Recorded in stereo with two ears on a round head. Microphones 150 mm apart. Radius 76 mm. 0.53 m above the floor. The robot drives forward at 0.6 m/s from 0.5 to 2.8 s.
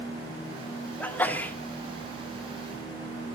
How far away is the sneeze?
About 1.3 m.